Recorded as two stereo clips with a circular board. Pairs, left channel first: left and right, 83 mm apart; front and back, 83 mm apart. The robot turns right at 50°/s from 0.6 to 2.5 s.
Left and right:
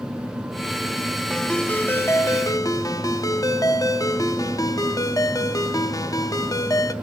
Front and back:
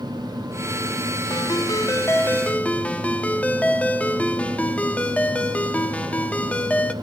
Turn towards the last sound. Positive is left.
turn(degrees=70)